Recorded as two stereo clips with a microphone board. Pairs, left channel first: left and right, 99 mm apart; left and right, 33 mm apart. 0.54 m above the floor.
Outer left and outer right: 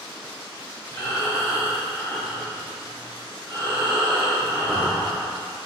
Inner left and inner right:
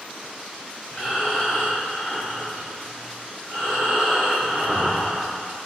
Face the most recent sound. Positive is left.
turn(degrees=35)  # may be behind; listen again after turning